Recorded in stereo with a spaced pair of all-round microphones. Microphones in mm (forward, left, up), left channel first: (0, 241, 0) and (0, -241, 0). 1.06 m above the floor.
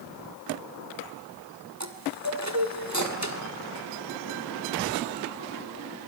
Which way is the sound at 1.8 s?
35° right (ahead or behind).